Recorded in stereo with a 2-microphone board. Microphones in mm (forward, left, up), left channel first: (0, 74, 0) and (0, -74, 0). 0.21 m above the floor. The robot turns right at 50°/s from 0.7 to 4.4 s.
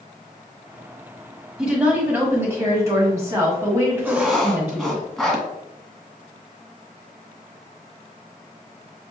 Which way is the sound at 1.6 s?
5° right (ahead or behind).